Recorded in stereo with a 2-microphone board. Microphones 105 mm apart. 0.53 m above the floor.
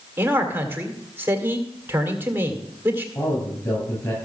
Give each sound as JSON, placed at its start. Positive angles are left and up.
{"t": 0.2, "sound": "a man speaking", "side_deg": -20, "distance_m": 1.9}
{"t": 3.1, "sound": "a man speaking", "side_deg": 35, "distance_m": 8.0}